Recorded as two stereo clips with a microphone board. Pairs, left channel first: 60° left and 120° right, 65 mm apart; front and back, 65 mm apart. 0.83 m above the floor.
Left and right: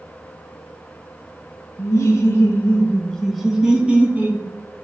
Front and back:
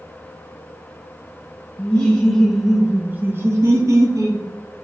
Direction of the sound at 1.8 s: 60° left.